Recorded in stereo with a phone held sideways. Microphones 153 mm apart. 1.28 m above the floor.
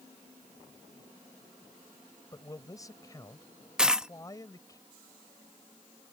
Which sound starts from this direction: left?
A man speaking, at 2.3 s.